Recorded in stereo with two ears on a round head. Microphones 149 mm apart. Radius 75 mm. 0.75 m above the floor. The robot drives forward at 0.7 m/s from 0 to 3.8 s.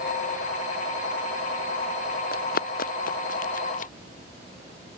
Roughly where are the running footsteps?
Left.